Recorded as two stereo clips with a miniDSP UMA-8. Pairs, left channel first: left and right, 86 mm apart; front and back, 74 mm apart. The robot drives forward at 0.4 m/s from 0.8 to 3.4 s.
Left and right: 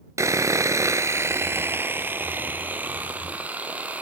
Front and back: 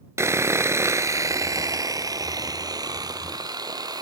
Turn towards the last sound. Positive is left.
turn(degrees=-160)